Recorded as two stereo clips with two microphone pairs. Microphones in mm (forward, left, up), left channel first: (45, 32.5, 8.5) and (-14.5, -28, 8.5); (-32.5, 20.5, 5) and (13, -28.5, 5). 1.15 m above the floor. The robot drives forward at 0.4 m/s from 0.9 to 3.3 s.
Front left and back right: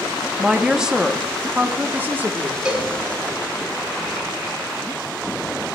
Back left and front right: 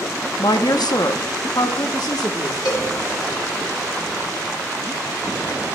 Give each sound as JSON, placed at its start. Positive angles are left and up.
{"t": 0.4, "sound": "a woman speaking", "azimuth_deg": 140, "distance_m": 0.8}
{"t": 2.6, "sound": "a cowbell", "azimuth_deg": 145, "distance_m": 2.0}